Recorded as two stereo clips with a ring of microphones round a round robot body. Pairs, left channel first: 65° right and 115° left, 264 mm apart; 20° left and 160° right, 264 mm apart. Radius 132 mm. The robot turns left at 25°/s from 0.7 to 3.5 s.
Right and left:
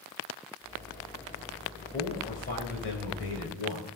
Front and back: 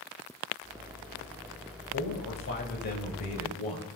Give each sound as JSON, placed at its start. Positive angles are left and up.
{"t": 1.9, "sound": "a man speaking", "azimuth_deg": -5, "distance_m": 2.5}